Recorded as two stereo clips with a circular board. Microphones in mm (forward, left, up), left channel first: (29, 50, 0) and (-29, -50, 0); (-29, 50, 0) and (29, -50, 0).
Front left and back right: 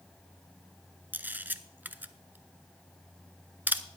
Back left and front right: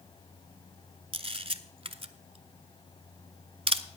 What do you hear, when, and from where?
1.1 s a camera shutter: 50° right, 0.6 m